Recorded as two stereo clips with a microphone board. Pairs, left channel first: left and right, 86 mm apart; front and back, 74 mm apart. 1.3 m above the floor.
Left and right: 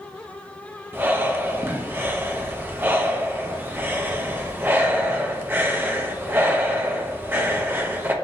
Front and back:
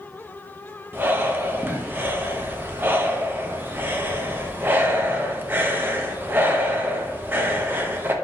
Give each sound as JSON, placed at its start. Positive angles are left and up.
{"t": 0.9, "sound": "breathing", "azimuth_deg": -140, "distance_m": 0.5}